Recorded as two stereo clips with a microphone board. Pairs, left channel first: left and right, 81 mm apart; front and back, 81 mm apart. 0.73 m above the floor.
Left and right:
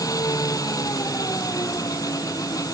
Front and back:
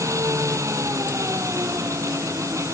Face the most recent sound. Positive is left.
turn(degrees=130)